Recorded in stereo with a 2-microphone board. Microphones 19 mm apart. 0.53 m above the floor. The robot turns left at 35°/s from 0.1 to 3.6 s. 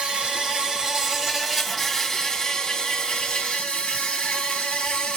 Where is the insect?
135° right, 2 m; by 5.2 s 105° left, 2 m.